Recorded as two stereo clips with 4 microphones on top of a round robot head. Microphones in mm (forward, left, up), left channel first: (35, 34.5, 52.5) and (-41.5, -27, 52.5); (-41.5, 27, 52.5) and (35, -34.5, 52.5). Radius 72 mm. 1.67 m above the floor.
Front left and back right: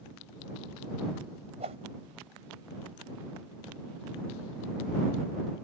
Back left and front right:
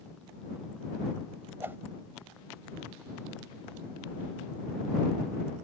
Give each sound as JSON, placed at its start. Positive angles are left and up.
{"t": 1.6, "sound": "a whoosh", "azimuth_deg": -110}